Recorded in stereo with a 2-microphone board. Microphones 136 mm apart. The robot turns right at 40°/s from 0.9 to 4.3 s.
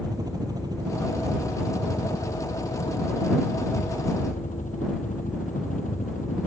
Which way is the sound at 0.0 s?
25° right (ahead or behind).